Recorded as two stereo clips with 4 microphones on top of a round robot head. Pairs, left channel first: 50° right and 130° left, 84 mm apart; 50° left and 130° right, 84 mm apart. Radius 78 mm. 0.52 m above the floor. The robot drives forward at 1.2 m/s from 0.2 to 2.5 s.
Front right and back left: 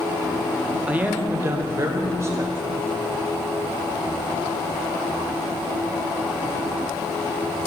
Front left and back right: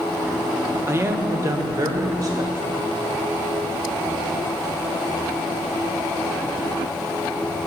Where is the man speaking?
165° right, 1.3 m; by 3.0 s 175° right, 3 m.